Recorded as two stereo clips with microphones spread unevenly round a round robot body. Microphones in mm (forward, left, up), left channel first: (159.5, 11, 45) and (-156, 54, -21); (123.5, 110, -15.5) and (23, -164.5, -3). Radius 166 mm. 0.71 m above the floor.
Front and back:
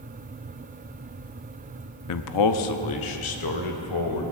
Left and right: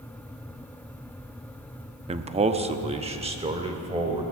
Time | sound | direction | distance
2.1 | a man speaking | 40° right | 0.6 m